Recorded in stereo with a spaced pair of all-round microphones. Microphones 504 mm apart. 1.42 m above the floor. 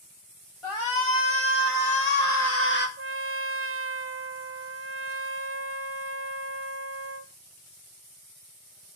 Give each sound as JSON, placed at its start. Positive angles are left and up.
{"t": 0.6, "sound": "a shout", "side_deg": 75, "distance_m": 2.0}
{"t": 3.0, "sound": "a trumpet", "side_deg": -25, "distance_m": 0.6}